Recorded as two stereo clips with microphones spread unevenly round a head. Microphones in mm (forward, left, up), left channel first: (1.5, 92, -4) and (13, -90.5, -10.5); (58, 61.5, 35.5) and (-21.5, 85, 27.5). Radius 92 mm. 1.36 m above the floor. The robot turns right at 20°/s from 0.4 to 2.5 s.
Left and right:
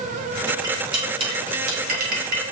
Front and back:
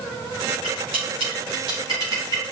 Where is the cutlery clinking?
160° right, 2.5 m; by 2.5 s 120° right, 2.5 m.